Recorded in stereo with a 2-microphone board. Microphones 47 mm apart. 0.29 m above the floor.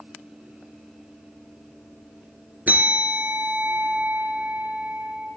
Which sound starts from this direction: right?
A bell, at 2.7 s.